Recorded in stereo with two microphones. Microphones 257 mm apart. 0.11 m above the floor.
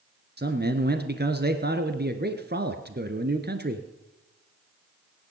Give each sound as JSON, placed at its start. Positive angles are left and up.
{"t": 0.4, "sound": "a man speaking", "side_deg": -40, "distance_m": 1.4}